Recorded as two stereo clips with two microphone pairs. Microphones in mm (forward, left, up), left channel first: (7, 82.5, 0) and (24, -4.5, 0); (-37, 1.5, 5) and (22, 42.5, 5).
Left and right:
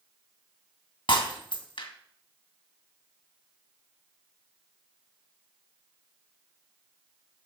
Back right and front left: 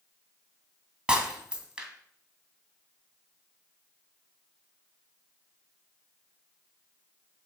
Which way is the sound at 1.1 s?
110° left.